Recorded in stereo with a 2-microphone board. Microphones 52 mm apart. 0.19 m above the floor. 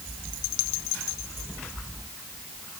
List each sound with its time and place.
Only background noise.